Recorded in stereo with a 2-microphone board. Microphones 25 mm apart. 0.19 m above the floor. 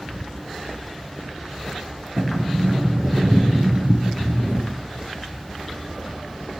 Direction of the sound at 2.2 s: 55° right (ahead or behind).